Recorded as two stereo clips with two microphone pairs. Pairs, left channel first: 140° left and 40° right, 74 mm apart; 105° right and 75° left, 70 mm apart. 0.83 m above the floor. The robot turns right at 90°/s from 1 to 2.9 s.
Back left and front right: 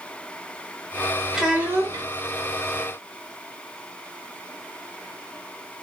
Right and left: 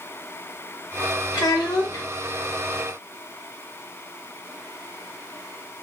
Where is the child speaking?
130° right, 1.4 m; by 2.1 s 65° right, 1.4 m.